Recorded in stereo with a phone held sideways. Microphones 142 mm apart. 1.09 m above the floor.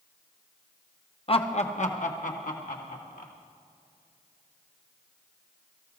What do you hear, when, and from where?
1.3 s laughter: 40° left (ahead or behind), 0.9 m; by 3.3 s 75° left (ahead or behind), 3 m